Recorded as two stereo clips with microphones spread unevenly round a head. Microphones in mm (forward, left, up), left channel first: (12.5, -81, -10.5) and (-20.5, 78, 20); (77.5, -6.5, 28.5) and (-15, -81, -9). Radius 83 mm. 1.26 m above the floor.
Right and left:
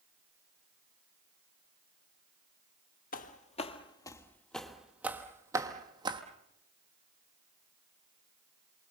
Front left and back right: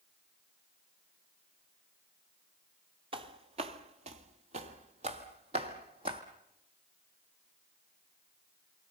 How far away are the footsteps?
About 1.5 m.